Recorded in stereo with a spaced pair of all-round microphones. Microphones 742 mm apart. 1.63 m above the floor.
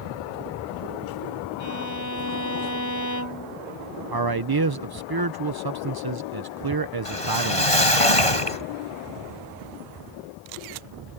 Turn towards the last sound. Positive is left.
turn(degrees=45)  # may be behind; listen again after turning